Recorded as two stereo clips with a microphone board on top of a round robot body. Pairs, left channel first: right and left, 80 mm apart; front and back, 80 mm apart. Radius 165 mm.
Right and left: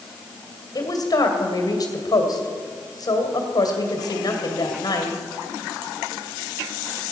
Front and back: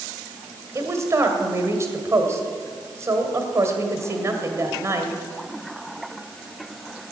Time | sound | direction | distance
0.8 | a woman speaking | 125° right | 2.5 m